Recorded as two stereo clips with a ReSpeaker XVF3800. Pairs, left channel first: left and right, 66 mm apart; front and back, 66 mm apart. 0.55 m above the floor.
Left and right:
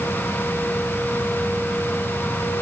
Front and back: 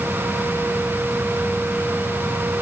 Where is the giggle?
I don't hear a giggle.